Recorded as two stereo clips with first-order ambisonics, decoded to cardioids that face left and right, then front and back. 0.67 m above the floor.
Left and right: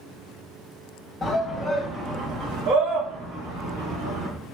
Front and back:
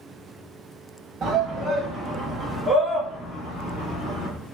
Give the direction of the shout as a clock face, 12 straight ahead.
7 o'clock.